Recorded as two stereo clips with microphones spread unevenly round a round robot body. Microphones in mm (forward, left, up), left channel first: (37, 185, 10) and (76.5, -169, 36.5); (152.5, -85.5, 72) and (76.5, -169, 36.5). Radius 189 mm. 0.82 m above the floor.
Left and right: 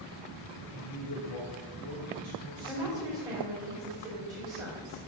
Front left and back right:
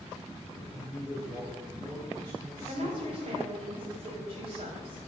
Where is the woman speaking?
165° right, 3.5 m.